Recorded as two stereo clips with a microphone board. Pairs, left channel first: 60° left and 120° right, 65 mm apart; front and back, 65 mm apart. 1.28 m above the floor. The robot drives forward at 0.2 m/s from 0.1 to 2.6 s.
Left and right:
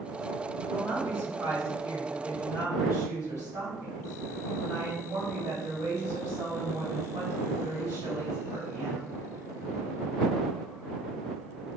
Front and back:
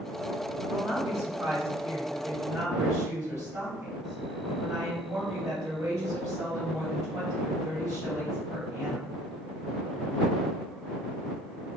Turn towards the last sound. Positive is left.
turn(degrees=-150)